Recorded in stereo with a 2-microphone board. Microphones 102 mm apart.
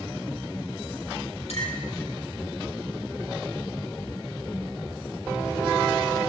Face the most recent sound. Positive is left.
turn(degrees=80)